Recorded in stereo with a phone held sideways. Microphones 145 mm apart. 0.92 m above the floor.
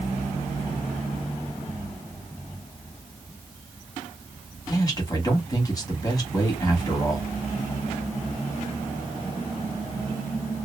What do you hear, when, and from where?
4.7 s a man speaking: 25° left (ahead or behind), 1.2 m